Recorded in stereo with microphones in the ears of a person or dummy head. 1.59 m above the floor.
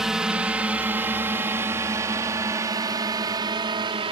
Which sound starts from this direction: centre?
A drone, at 0.0 s.